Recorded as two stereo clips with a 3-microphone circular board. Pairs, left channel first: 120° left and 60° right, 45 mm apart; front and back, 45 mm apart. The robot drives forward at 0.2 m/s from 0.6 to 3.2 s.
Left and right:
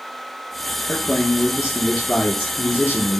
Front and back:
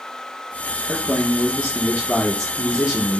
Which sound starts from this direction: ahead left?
A man speaking, at 0.9 s.